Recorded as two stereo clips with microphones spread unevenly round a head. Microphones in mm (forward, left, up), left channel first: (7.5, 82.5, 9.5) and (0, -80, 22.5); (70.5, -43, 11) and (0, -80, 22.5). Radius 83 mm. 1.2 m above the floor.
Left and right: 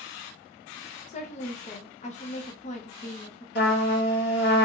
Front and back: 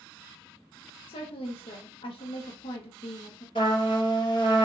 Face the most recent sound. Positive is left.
turn(degrees=65)